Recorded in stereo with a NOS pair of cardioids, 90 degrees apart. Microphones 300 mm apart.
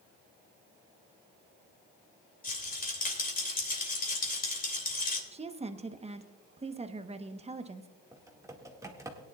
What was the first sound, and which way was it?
A rattle, 30° left.